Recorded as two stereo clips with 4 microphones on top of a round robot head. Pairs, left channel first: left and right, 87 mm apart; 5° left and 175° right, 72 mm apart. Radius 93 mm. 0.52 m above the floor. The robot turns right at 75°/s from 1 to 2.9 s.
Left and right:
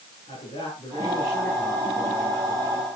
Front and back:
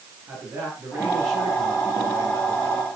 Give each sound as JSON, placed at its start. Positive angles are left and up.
{"t": 0.3, "sound": "a man speaking", "azimuth_deg": 125, "distance_m": 8.5}